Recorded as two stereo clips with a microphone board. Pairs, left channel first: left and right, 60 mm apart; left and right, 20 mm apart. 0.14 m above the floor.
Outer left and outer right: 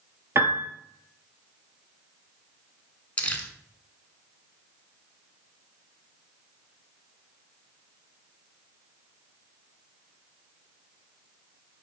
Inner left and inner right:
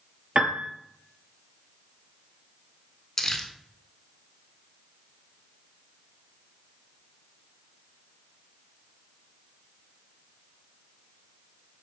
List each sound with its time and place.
0.3 s a piano: 50° right (ahead or behind), 0.6 m
3.2 s crumpling: 25° left (ahead or behind), 0.6 m